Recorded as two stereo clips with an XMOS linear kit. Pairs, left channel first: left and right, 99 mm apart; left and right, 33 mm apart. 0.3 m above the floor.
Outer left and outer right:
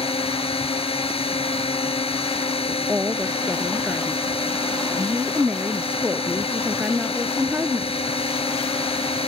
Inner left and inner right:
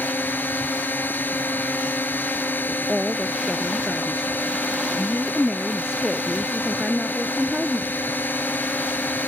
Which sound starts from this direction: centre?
A woman speaking, at 2.7 s.